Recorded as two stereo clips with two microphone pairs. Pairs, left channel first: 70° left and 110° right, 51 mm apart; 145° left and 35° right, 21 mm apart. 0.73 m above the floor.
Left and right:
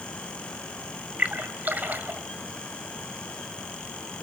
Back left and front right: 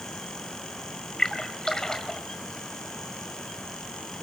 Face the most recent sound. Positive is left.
turn(degrees=-160)